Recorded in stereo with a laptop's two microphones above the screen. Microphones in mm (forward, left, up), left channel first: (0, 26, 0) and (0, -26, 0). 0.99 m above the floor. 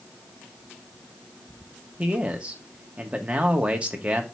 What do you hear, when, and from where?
2.0 s a man speaking: 25° right (ahead or behind), 1.7 m